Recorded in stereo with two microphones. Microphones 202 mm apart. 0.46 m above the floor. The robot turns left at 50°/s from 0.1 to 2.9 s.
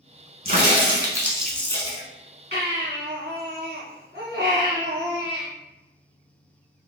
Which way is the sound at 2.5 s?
55° right (ahead or behind).